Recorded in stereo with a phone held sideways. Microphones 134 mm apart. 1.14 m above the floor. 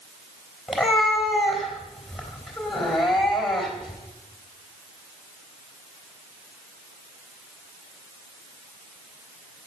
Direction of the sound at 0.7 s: Centre (ahead or behind).